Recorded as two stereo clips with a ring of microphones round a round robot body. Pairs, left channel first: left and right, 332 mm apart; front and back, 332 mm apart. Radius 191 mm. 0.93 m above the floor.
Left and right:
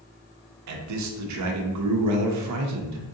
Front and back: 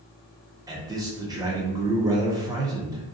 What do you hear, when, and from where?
0.7 s a man speaking: 105° right, 0.7 m